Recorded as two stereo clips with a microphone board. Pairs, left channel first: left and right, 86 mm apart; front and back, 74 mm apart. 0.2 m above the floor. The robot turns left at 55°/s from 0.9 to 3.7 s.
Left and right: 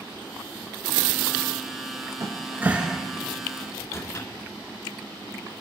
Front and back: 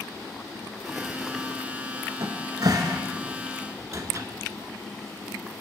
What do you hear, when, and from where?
2.2 s a cupboard door: 135° right, 0.7 m; by 4.3 s 140° left, 0.7 m